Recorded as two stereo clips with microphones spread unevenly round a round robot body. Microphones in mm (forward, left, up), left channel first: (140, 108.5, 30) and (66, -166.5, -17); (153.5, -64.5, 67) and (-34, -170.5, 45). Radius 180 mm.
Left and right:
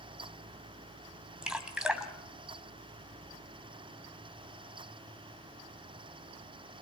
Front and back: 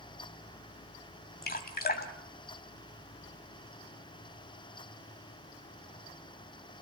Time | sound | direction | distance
1.4 | dripping | 15° right | 2.5 m